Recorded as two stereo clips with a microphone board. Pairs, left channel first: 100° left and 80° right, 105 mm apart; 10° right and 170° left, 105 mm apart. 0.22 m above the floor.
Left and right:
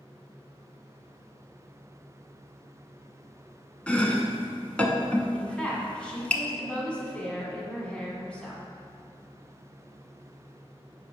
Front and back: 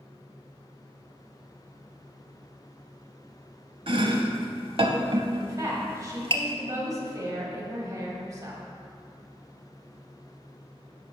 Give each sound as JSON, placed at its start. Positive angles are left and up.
{"t": 3.9, "sound": "chopping", "azimuth_deg": 175, "distance_m": 0.6}
{"t": 5.3, "sound": "a woman speaking", "azimuth_deg": 170, "distance_m": 1.3}